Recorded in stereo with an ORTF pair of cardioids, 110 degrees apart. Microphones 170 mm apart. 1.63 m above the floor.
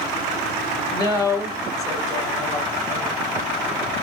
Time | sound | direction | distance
0.9 | a woman speaking | 20° left | 1.9 m